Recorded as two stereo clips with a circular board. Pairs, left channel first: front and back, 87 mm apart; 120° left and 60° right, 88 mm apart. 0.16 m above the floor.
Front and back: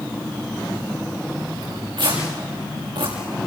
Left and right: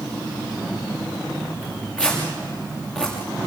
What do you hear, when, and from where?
1.6 s tearing paper: 165° right, 7.5 m